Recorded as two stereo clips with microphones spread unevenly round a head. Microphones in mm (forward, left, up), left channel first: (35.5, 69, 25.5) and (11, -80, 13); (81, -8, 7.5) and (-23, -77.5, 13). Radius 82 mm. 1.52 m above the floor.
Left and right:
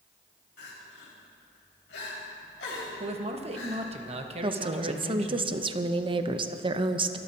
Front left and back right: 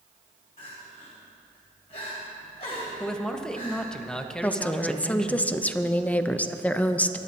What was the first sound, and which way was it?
Crying, 90° left.